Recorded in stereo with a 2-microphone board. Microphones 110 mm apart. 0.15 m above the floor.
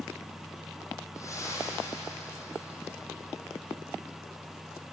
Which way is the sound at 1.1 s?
30° left (ahead or behind).